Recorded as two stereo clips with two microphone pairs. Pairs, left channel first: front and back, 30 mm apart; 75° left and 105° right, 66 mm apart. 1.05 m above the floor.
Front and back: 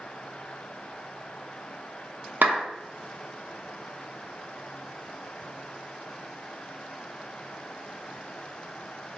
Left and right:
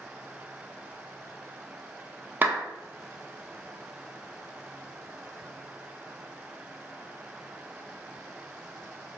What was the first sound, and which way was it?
A clap, 165° right.